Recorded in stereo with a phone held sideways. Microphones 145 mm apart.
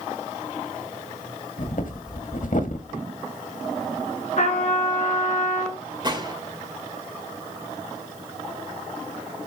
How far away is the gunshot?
About 2 m.